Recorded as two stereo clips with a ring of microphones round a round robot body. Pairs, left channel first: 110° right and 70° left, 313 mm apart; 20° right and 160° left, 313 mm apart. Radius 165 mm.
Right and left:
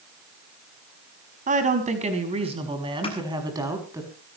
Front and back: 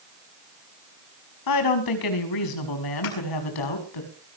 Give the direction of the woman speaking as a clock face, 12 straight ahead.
12 o'clock.